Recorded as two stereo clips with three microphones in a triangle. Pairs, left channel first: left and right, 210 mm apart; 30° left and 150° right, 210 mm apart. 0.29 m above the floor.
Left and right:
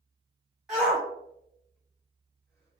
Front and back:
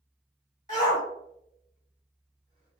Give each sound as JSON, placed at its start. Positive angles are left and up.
{"t": 0.7, "sound": "a shout", "azimuth_deg": -5, "distance_m": 1.8}